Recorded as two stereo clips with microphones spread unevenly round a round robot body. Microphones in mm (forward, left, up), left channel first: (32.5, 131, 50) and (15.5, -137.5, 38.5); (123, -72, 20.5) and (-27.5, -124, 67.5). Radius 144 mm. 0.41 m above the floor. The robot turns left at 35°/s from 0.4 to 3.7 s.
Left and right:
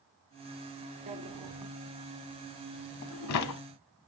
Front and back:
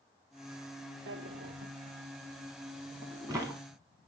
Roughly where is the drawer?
Behind.